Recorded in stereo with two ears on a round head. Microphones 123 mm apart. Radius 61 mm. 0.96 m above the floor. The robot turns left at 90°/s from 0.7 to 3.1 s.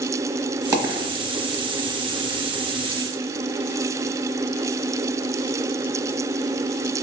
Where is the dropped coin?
25° right (ahead or behind), 1.1 m; by 1.1 s 40° right (ahead or behind), 1.1 m.